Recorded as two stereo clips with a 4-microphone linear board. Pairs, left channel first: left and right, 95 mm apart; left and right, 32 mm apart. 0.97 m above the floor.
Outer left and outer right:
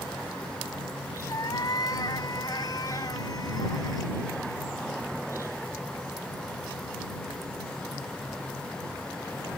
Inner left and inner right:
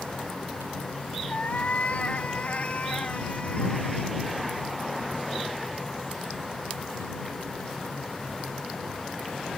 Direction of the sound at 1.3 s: 45° left (ahead or behind).